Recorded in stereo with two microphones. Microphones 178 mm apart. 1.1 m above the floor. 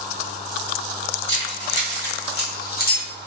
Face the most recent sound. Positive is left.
turn(degrees=50)  # may be behind; listen again after turning